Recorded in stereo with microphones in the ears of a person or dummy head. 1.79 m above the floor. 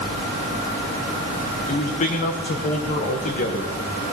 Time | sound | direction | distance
1.7 | a man speaking | 40° left (ahead or behind) | 1.4 m